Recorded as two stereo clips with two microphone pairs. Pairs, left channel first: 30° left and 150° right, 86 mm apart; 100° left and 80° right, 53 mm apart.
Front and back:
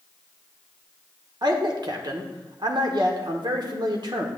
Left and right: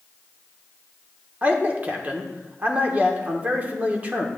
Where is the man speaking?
135° right, 1.2 m.